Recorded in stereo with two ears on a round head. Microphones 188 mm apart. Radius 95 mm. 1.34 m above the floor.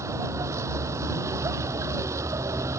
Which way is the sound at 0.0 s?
15° right (ahead or behind).